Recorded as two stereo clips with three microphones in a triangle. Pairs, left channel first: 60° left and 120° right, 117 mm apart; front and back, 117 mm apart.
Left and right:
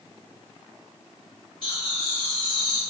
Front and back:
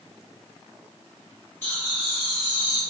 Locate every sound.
1.6 s laughter: 65° left, 1.7 m; by 2.8 s straight behind, 1.4 m